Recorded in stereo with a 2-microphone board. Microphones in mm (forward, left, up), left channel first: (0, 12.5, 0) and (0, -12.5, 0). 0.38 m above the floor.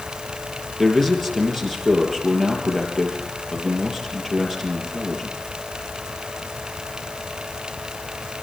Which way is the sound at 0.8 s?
10° left (ahead or behind).